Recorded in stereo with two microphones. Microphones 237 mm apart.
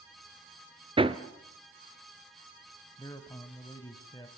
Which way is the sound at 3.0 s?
15° left (ahead or behind).